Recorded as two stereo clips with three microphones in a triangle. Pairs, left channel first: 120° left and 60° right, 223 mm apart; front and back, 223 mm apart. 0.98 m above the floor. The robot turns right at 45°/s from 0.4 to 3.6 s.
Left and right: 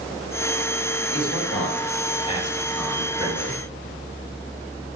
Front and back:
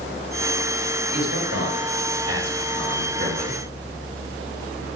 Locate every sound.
1.1 s a man speaking: 135° left, 5 m; by 3.6 s 115° right, 5 m